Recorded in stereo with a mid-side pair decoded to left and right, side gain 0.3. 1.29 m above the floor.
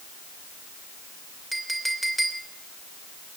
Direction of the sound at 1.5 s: 10° right.